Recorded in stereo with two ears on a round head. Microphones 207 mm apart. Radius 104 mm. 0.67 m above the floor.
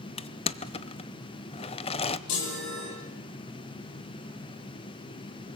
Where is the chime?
85° left, 8.5 m.